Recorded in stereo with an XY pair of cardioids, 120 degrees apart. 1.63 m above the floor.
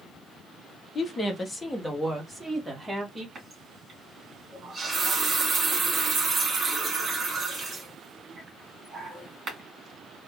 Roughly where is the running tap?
Ahead right.